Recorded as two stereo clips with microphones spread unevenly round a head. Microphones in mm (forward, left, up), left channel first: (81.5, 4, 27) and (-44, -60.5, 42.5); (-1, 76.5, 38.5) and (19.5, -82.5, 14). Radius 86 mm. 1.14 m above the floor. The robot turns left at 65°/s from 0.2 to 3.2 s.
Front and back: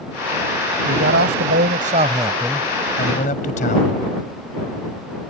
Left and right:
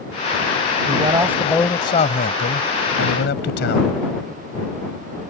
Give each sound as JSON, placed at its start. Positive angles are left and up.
{"t": 0.9, "sound": "a man speaking", "azimuth_deg": -135}